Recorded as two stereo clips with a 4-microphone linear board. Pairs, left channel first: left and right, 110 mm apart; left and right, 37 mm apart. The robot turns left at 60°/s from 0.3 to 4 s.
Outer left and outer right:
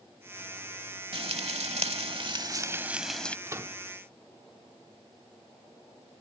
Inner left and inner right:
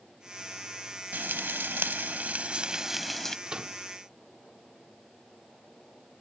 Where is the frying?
60° right; by 3.4 s 165° left.